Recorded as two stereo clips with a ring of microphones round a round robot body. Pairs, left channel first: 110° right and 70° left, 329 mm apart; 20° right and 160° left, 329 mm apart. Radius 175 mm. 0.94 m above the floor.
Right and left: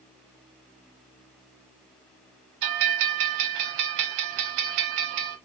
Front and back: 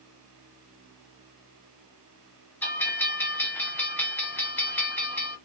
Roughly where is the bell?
Ahead left.